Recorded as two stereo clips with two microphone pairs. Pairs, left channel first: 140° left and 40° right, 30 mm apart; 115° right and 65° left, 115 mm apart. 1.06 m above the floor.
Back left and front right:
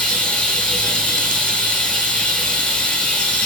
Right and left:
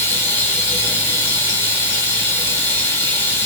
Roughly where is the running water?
Behind.